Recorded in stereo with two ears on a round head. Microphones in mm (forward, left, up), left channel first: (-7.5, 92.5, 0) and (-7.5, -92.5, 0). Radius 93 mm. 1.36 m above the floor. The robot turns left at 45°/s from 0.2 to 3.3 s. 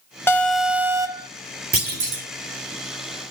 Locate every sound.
0.3 s an alarm: 15° left, 1.0 m; by 1.3 s 35° right, 1.0 m
1.7 s a clunk: 45° right (ahead or behind), 2.5 m; by 2.2 s 65° right (ahead or behind), 2.5 m